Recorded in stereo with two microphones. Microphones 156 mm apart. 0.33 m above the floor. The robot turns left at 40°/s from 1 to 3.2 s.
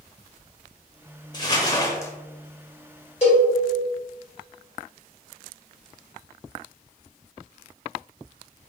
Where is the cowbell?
40° left (ahead or behind), 2.0 m.